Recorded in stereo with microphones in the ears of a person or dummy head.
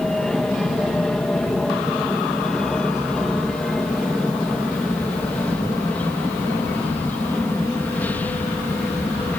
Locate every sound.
0.0 s an aircraft: centre (ahead or behind); by 9.4 s 10° left (ahead or behind)